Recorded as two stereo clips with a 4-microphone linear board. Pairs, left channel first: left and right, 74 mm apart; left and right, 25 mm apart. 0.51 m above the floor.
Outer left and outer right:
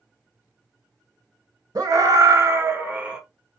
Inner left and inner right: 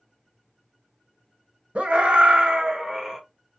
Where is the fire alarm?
I don't hear a fire alarm.